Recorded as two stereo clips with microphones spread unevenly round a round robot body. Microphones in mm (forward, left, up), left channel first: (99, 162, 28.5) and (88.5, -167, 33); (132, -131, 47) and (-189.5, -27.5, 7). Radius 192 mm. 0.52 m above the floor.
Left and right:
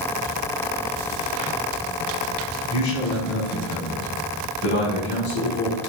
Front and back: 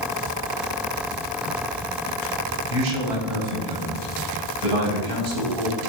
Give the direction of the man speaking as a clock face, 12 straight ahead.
7 o'clock.